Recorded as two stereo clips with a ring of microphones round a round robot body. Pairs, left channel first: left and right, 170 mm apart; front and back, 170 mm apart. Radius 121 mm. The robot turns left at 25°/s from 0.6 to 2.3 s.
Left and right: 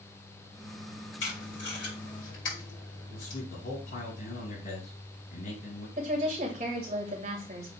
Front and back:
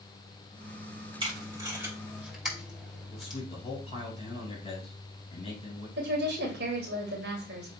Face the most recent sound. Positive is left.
turn(degrees=-150)